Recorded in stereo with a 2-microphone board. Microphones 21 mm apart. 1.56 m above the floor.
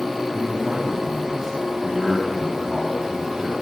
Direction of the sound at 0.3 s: 30° right (ahead or behind).